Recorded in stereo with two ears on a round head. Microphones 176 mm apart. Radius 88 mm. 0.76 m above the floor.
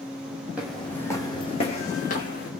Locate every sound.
0.6 s footsteps: 5° right (ahead or behind), 1.4 m; by 2.5 s 45° left (ahead or behind), 2.5 m